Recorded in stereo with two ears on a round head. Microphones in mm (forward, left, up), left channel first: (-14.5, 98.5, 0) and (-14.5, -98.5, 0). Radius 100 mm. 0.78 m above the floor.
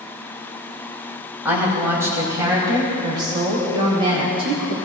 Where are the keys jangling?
I don't hear keys jangling.